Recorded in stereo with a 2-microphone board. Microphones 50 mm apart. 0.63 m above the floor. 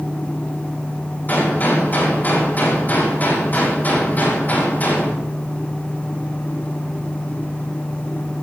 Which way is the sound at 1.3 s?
35° left (ahead or behind).